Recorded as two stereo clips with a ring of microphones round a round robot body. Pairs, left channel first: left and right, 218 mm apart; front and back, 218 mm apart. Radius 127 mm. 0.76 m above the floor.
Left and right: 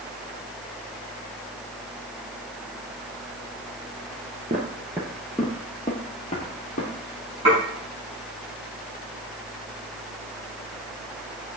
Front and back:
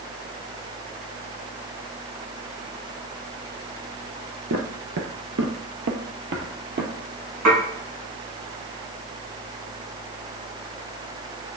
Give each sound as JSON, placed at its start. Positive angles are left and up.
{"t": 4.5, "sound": "footsteps", "azimuth_deg": -150, "distance_m": 1.2}
{"t": 7.5, "sound": "dishes clattering", "azimuth_deg": -160, "distance_m": 4.0}